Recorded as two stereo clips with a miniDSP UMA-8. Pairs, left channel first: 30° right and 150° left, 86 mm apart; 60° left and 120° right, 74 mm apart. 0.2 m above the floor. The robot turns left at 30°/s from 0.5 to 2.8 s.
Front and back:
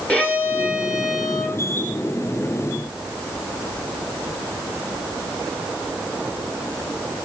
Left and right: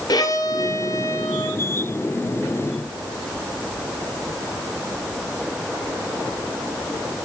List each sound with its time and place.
0.1 s a violin: 45° left, 2 m; by 1.6 s 10° left, 2 m